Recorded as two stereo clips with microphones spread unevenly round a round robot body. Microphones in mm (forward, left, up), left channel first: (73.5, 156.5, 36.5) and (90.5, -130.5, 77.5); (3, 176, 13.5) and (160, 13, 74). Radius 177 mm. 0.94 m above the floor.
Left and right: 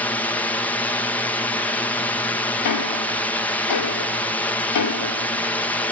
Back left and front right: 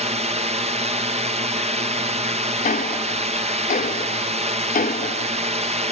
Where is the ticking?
70° left.